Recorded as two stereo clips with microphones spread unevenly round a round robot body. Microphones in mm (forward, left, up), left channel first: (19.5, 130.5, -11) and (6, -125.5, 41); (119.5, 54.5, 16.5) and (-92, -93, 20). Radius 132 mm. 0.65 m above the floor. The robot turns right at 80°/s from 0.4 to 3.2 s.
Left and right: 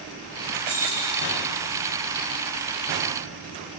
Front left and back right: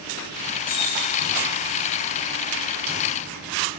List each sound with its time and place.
0.7 s keys jangling: 25° right, 9 m; by 1.3 s 25° left, 9 m